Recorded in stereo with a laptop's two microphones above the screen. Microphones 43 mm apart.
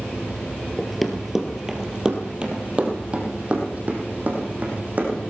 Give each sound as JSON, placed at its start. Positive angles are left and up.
{"t": 0.8, "sound": "running footsteps", "side_deg": 5, "distance_m": 1.3}